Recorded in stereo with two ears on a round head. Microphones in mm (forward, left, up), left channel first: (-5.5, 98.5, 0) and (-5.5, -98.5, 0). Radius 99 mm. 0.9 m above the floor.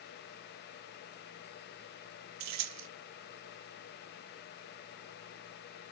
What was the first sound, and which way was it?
Keys jangling, 85° right.